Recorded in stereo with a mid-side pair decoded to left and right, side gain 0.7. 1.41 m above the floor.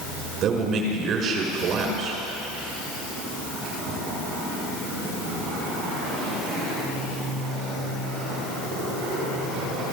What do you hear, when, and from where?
0.4 s a man speaking: 45° right, 4.5 m